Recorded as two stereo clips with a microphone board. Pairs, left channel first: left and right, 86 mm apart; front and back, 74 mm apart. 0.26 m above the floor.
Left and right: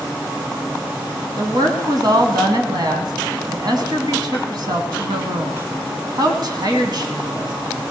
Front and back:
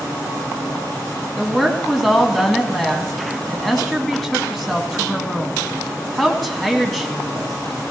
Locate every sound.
1.4 s a woman speaking: 85° right, 2 m